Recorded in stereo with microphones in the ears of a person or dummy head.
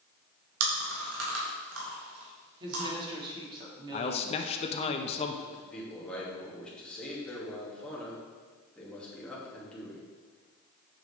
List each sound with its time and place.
0.6 s chewing: 75° right (ahead or behind), 2.5 m
2.6 s a woman speaking: 20° right (ahead or behind), 1.9 m
3.9 s a man speaking: 30° left (ahead or behind), 0.6 m
5.5 s a man speaking: 10° left (ahead or behind), 2.5 m